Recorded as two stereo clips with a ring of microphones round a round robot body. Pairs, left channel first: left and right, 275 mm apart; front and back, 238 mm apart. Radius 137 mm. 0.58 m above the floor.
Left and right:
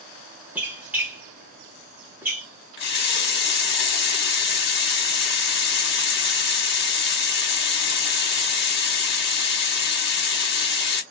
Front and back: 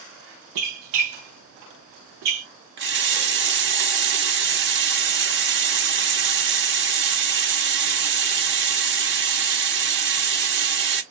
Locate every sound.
0.6 s a squeak: 175° right, 0.9 m
2.8 s a running tap: 140° left, 0.9 m